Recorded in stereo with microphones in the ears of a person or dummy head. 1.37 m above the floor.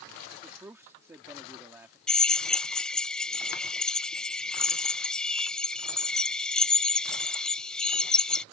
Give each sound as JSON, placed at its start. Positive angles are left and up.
{"t": 0.4, "sound": "a man speaking", "side_deg": -15}
{"t": 2.1, "sound": "a drill", "side_deg": 0}